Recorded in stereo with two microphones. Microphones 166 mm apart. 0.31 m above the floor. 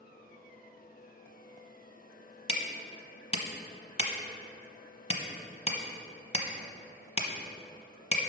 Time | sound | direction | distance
2.5 | hammering | 40° left (ahead or behind) | 0.8 m